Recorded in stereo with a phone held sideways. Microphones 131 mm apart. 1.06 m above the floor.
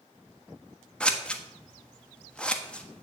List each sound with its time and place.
1.0 s scissors: 5° left (ahead or behind), 1.3 m